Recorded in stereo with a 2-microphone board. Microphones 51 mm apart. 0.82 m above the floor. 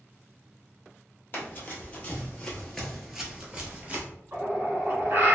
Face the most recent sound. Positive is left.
turn(degrees=-45)  # may be behind; listen again after turning